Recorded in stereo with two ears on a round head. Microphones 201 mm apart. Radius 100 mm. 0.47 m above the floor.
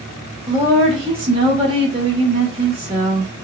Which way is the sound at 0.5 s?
25° right (ahead or behind).